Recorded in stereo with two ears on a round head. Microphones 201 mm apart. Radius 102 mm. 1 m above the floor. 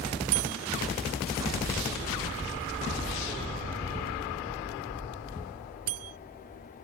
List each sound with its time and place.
0.3 s a bell: 80° right